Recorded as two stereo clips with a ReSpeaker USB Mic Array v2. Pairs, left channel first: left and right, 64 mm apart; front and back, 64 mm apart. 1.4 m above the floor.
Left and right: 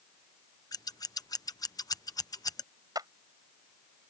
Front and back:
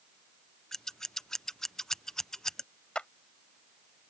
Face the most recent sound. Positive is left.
turn(degrees=-75)